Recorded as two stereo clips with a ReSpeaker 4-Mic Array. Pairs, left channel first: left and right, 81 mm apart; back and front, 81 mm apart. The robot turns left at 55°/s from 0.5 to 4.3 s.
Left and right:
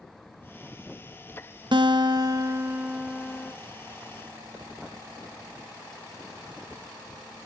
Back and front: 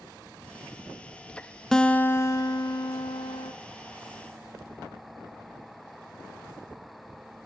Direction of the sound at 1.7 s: 95° right.